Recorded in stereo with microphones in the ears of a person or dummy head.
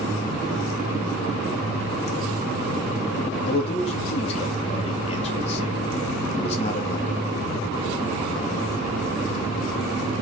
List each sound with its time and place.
3.5 s a man speaking: 30° left (ahead or behind), 2 m